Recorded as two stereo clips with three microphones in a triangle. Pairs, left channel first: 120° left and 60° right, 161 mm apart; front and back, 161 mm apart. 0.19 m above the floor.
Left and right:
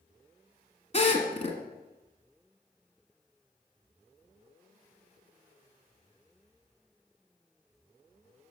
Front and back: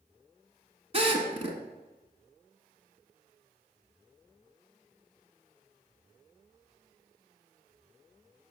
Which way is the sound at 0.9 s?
145° left.